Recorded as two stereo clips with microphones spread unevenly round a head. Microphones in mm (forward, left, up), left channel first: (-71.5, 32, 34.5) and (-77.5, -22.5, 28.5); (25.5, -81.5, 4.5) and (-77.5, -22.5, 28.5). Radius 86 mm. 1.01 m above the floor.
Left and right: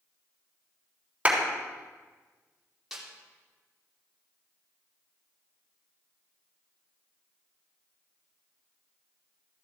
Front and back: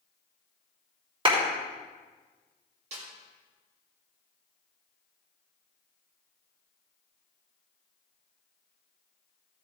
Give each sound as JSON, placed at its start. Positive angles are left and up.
{"t": 1.2, "sound": "a clap", "azimuth_deg": -165, "distance_m": 3.5}
{"t": 2.9, "sound": "a snare drum", "azimuth_deg": 180, "distance_m": 2.5}